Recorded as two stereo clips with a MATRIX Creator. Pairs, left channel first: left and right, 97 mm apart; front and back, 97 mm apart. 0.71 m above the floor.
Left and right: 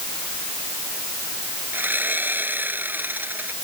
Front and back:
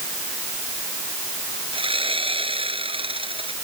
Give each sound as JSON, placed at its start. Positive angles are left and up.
{"t": 1.7, "sound": "sawing", "azimuth_deg": -160}